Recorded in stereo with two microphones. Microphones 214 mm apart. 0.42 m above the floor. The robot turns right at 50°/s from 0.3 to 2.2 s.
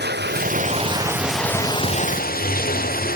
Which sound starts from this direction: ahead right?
Running water, at 0.0 s.